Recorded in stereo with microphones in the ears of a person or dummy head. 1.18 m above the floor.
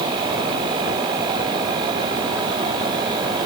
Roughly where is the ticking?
I don't hear ticking.